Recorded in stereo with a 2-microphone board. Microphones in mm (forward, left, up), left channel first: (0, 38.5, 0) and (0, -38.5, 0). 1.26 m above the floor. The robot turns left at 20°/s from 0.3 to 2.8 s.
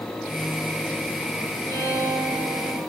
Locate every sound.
1.7 s a violin: 50° left (ahead or behind), 1.3 m; by 2.8 s 30° left (ahead or behind), 1.3 m